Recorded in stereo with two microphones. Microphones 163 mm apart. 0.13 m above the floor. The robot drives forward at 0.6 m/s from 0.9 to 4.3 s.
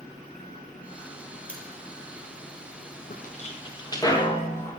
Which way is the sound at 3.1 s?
60° left (ahead or behind).